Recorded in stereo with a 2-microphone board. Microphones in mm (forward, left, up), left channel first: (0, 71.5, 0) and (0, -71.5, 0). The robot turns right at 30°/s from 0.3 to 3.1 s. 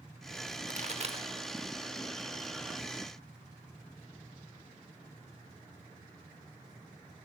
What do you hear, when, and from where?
0.7 s a pop: 60° right (ahead or behind), 1.0 m; by 1.3 s 40° right (ahead or behind), 1.0 m